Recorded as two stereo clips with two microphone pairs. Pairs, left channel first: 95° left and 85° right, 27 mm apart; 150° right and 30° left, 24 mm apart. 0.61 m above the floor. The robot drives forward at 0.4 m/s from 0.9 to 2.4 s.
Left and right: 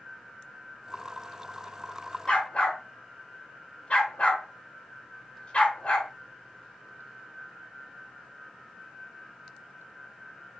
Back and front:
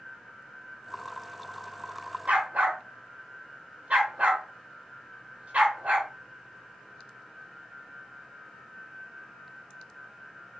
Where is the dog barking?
55° left, 0.9 m.